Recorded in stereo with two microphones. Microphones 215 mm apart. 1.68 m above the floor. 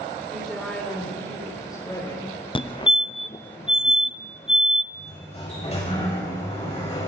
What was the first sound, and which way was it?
A woman speaking, centre (ahead or behind).